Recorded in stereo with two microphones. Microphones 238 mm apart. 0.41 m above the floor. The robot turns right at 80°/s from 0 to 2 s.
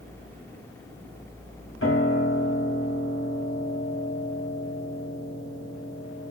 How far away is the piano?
About 2 m.